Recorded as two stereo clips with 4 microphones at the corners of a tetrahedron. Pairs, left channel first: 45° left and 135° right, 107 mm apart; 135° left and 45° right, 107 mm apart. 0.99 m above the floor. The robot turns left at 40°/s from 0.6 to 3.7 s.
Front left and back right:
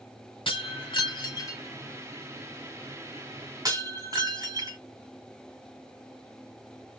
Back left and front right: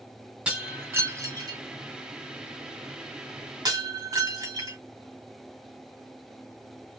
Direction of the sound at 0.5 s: 30° left.